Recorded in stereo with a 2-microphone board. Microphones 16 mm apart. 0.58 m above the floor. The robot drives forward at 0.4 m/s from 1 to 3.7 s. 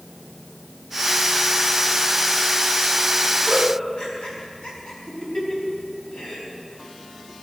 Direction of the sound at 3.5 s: 80° left.